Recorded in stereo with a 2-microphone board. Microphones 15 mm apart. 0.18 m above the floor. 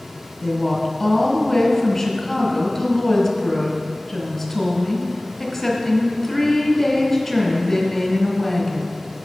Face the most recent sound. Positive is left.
turn(degrees=5)  # may be behind; listen again after turning